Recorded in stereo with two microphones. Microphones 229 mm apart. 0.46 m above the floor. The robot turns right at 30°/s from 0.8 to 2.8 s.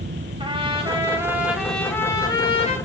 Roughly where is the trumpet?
Ahead right.